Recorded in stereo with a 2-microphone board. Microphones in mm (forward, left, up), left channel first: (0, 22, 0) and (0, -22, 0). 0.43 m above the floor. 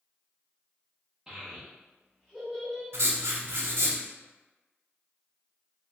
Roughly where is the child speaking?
Centre.